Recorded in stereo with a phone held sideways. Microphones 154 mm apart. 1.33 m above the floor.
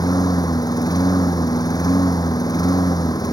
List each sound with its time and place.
0.0 s a lawn mower: 25° left (ahead or behind)